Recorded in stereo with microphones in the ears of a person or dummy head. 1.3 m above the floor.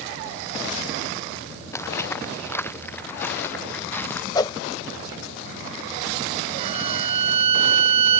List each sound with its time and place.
1.7 s footsteps: 15° left (ahead or behind); by 4.2 s 10° left (ahead or behind)
4.3 s a whoosh: 20° left (ahead or behind)
6.6 s a violin: 35° right (ahead or behind)